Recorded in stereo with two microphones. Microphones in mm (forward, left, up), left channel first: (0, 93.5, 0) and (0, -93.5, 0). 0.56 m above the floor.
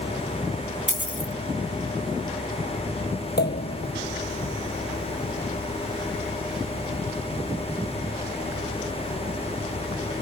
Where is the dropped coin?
85° left.